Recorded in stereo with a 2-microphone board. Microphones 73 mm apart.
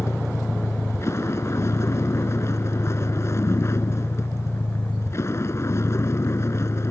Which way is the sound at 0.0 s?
40° left (ahead or behind).